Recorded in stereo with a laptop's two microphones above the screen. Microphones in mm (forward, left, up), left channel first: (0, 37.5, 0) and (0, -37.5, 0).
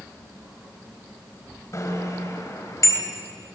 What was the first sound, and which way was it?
A bicycle bell, 45° left (ahead or behind).